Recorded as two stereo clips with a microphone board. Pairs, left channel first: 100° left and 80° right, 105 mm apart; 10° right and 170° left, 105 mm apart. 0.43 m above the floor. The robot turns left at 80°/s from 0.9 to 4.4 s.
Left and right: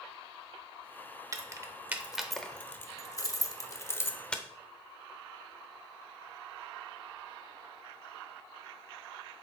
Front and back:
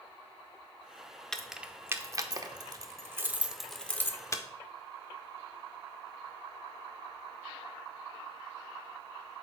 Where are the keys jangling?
90° right, 0.6 m; by 4.4 s 20° left, 0.6 m.